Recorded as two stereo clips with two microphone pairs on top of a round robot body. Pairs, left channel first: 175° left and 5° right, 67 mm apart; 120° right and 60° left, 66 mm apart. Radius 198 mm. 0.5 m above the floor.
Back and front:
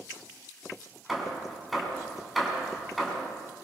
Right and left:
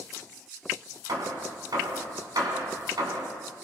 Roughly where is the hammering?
Left.